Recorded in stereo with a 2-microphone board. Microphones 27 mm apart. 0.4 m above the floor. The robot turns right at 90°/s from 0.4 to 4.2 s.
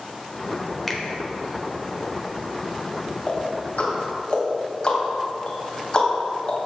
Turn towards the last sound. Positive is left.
turn(degrees=40)  # may be behind; listen again after turning